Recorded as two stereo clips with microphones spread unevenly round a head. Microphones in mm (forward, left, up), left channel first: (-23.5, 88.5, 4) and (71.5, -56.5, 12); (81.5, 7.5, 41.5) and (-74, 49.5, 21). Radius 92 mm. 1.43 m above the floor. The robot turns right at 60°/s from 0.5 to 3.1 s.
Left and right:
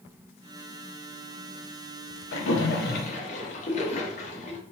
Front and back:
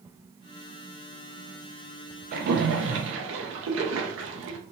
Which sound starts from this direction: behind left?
A splash, at 2.3 s.